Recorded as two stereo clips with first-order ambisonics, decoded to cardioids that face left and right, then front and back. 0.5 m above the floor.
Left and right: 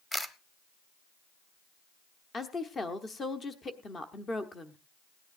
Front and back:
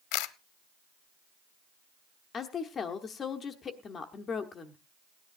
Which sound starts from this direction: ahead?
A camera shutter, at 0.1 s.